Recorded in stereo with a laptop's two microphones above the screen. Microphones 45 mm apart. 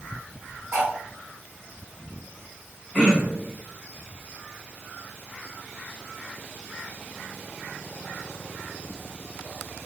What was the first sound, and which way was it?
Cutlery clinking, 70° right (ahead or behind).